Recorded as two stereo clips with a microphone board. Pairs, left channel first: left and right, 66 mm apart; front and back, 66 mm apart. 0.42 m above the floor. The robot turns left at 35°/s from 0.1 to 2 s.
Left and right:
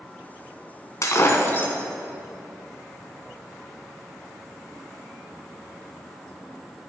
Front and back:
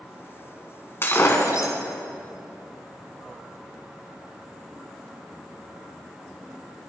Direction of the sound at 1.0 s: 55° left.